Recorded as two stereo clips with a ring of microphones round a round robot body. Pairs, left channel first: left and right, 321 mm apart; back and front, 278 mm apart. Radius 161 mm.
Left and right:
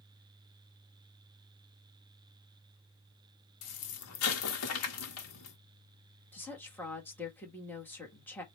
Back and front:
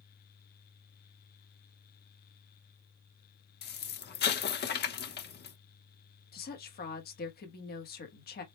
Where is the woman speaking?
170° left, 1.2 m.